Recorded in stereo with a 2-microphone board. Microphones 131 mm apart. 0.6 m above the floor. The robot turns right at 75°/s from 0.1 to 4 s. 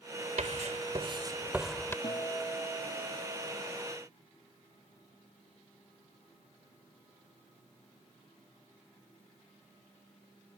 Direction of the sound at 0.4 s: 65° right (ahead or behind).